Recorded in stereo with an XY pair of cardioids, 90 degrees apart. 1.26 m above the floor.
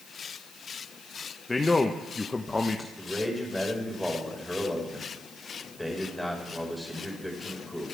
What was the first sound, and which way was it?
A man speaking, 25° left.